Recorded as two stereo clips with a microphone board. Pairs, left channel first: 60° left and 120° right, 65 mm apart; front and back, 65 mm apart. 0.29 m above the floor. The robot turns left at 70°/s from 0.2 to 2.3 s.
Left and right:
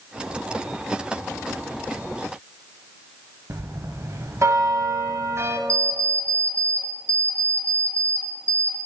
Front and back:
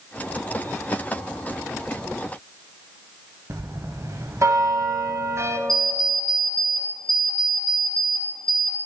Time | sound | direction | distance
3.5 | a bell | 155° right | 0.5 m
5.7 | an alarm clock | 80° right | 1.7 m